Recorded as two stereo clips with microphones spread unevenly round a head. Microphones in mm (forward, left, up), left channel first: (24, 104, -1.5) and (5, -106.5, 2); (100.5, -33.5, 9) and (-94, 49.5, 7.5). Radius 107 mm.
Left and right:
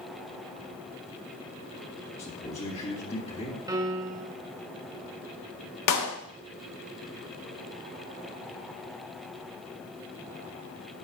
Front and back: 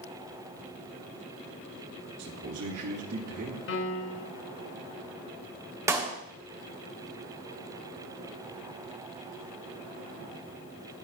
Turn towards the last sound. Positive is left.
turn(degrees=80)